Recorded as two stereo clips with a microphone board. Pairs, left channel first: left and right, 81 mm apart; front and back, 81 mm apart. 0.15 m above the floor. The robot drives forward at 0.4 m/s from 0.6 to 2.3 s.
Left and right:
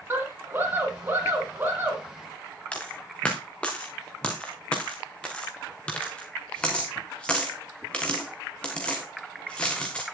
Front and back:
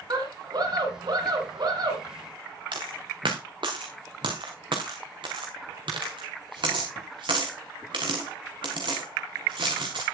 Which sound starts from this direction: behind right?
A scream, at 0.1 s.